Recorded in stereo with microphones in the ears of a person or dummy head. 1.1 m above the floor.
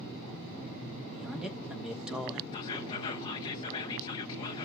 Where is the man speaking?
5° right (ahead or behind), 1.4 m.